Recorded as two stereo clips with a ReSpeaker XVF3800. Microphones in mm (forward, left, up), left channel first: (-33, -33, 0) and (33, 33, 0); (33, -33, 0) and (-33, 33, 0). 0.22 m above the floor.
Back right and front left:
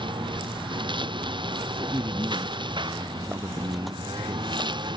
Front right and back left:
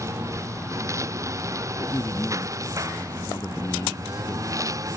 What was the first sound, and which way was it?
A lawn mower, 75° left.